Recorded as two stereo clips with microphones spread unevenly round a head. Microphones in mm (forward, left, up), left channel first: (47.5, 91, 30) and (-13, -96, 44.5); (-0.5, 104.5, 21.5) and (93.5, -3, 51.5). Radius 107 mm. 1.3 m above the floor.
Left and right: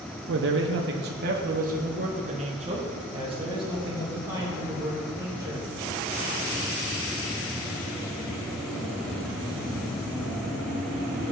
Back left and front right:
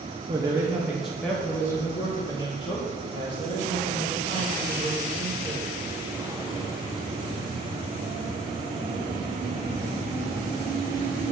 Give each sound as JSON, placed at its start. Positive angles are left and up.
{"t": 0.3, "sound": "a man speaking", "azimuth_deg": -120, "distance_m": 0.9}